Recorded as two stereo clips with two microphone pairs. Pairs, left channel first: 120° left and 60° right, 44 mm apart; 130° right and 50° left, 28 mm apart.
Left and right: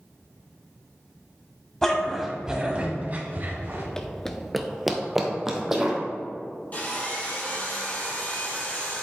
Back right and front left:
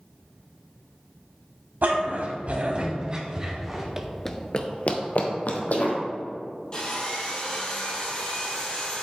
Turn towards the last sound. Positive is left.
turn(degrees=175)